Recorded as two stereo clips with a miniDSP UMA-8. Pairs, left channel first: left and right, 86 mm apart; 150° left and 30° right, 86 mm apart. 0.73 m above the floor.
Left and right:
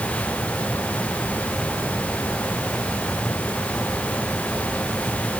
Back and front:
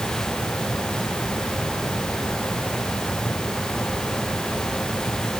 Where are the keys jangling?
I don't hear keys jangling.